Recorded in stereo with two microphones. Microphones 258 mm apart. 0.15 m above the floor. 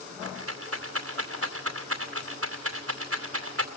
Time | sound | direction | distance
0.2 | a rattle | 60° right (ahead or behind) | 2 m